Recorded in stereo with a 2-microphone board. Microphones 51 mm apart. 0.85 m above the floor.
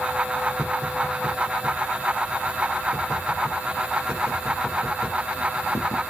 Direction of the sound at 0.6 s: 75° left (ahead or behind).